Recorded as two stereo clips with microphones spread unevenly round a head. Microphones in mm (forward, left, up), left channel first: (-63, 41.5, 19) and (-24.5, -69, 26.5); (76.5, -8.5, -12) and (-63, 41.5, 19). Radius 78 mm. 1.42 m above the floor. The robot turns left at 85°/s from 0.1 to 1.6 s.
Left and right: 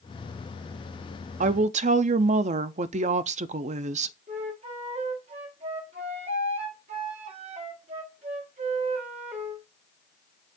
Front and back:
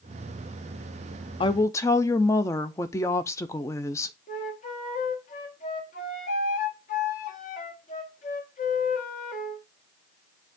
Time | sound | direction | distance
1.4 | a woman speaking | 70° right | 0.5 m
4.3 | a flute | 65° right | 1.1 m